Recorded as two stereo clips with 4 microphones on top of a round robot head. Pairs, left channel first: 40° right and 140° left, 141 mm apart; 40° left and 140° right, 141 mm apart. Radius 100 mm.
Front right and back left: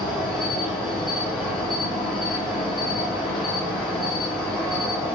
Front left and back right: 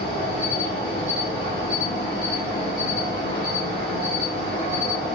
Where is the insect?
130° right, 2 m.